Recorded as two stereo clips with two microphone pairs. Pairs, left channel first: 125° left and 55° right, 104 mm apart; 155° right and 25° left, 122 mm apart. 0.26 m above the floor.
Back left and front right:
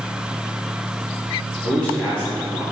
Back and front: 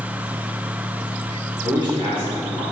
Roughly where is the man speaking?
Ahead left.